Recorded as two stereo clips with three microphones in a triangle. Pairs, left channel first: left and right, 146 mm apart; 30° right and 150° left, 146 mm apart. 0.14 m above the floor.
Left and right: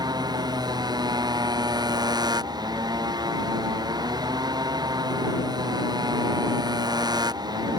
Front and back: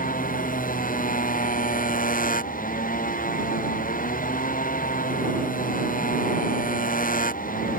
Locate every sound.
0.0 s a motorcycle: 30° right